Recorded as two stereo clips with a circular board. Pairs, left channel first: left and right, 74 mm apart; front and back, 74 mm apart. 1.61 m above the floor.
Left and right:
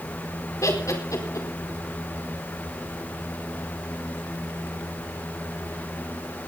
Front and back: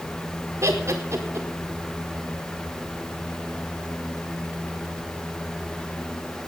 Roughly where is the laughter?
Behind left.